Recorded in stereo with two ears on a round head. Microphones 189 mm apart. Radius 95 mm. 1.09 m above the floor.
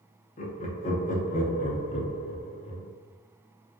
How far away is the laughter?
About 0.7 m.